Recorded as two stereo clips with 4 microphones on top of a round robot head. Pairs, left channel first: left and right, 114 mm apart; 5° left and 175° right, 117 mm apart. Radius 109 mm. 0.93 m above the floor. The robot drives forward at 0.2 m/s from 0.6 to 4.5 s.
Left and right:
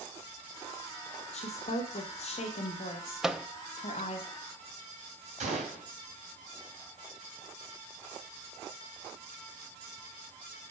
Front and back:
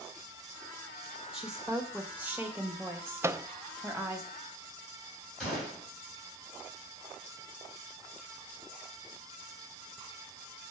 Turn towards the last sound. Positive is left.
turn(degrees=-85)